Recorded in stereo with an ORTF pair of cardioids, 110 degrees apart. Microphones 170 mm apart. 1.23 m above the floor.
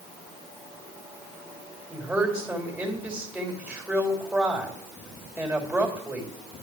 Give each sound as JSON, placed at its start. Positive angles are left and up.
{"t": 1.9, "sound": "a woman speaking", "azimuth_deg": -10, "distance_m": 3.0}